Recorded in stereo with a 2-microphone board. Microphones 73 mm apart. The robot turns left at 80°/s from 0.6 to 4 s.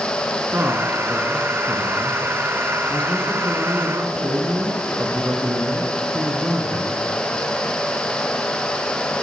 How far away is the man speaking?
About 1.6 m.